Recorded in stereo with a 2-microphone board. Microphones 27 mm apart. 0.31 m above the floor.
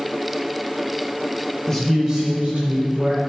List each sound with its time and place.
1.7 s a man speaking: 15° left (ahead or behind), 0.9 m; by 3.2 s 60° right (ahead or behind), 2 m